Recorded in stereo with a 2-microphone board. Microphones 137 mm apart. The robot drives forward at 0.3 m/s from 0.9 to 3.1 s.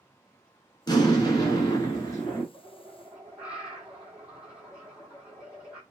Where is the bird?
10° right (ahead or behind), 0.7 m; by 5.8 s 5° right (ahead or behind), 0.8 m.